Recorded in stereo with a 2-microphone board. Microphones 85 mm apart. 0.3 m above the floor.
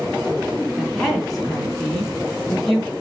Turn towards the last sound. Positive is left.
turn(degrees=0)  # may be behind; listen again after turning